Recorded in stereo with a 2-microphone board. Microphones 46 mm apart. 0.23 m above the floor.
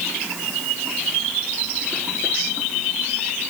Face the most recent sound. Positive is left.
No sound to turn to.